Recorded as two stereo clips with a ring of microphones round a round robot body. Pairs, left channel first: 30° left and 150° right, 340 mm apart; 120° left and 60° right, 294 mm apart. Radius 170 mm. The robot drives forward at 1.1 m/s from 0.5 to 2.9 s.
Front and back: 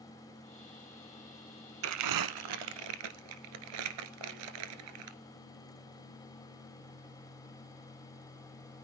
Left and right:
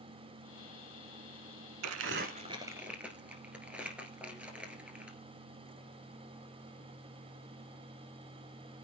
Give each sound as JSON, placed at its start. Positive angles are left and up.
{"t": 1.8, "sound": "crumpling", "azimuth_deg": -100, "distance_m": 1.0}